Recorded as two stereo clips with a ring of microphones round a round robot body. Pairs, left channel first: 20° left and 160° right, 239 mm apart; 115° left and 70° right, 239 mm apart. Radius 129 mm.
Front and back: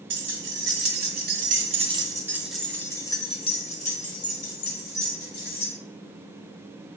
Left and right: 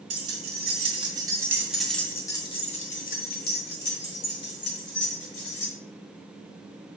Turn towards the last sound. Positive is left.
turn(degrees=70)